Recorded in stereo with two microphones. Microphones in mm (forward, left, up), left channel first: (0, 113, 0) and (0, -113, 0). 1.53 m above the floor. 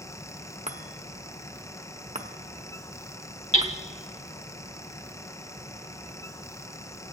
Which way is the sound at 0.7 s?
30° right (ahead or behind).